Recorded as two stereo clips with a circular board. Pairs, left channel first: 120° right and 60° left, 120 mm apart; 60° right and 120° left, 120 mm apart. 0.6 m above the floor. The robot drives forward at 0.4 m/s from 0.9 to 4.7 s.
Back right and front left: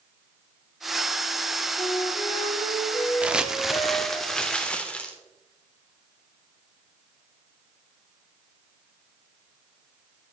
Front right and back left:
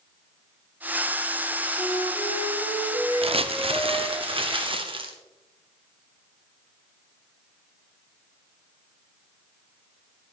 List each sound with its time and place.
1.8 s a flute: 65° right, 3.5 m; by 4.2 s 80° right, 3.5 m
3.2 s crumpling: 140° left, 0.6 m; by 5.1 s 160° left, 1.1 m